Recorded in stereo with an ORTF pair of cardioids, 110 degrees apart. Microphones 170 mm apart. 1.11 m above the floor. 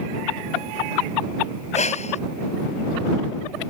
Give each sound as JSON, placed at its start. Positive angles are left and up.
{"t": 1.7, "sound": "breathing", "azimuth_deg": 40}